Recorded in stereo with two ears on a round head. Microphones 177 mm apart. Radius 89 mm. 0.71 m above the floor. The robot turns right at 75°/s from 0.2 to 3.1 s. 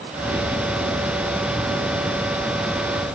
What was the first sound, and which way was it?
Only background noise.